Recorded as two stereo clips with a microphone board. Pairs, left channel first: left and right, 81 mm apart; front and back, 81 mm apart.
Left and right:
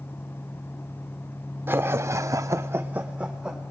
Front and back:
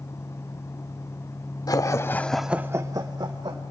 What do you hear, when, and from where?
1.7 s laughter: 30° right, 1.2 m; by 3.6 s 170° right, 1.7 m